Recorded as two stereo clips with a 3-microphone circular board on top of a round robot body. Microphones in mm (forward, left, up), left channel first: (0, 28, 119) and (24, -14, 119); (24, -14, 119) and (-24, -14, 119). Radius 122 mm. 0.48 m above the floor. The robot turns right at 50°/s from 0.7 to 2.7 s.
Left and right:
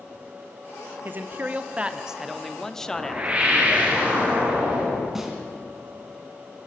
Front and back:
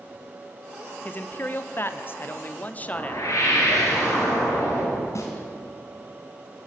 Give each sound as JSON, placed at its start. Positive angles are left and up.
{"t": 1.1, "sound": "a man speaking", "azimuth_deg": -40, "distance_m": 1.3}
{"t": 2.8, "sound": "a whoosh", "azimuth_deg": 5, "distance_m": 5.0}
{"t": 5.2, "sound": "a snare drum", "azimuth_deg": 25, "distance_m": 3.0}